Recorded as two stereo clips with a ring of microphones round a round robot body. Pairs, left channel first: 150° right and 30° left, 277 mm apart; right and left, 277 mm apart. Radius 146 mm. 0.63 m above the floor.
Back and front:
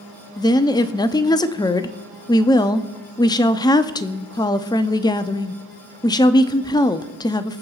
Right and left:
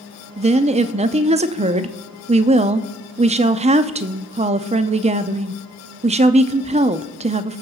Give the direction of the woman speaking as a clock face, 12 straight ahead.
7 o'clock.